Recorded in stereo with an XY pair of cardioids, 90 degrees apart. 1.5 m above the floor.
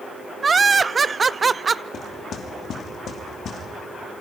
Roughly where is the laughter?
Ahead right.